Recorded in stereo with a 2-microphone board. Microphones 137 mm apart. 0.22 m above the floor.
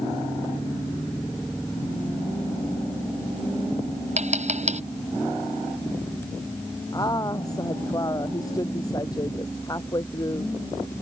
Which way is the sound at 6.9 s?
25° left (ahead or behind).